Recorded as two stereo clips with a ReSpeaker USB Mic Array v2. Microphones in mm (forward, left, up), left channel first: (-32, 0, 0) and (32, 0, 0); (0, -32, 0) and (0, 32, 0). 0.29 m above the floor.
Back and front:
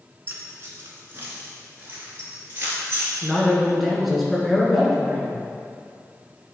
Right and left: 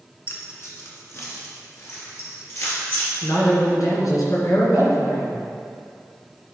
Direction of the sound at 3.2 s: 90° right.